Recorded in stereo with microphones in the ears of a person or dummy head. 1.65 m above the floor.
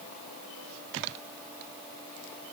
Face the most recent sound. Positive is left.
No sound to turn to.